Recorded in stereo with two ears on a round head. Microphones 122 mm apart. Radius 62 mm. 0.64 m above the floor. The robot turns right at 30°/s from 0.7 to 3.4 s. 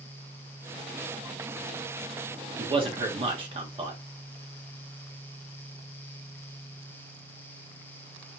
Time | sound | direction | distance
2.6 | a man speaking | 40° right (ahead or behind) | 1.3 m